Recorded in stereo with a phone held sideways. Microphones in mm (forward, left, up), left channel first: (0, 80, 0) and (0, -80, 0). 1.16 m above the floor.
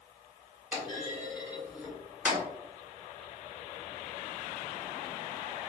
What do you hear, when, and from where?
0.7 s a clunk: 10° right (ahead or behind), 0.9 m